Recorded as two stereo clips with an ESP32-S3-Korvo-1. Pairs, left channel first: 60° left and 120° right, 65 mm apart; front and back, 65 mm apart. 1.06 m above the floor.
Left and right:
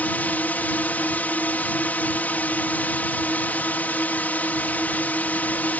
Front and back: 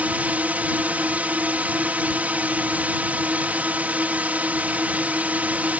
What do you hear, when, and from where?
0.0 s a drone: 120° left